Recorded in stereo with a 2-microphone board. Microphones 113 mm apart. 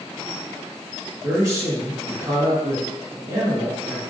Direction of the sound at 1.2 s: 30° right (ahead or behind).